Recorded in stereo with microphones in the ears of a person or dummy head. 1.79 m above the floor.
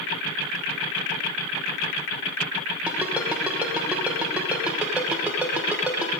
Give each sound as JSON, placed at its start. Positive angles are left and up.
{"t": 2.9, "sound": "a ringtone", "side_deg": -5, "distance_m": 1.1}